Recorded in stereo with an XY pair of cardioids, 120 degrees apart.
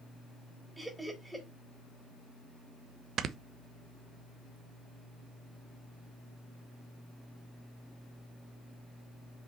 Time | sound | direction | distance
0.8 | laughter | 10° right | 3.5 m
3.2 | snoring | 55° right | 0.8 m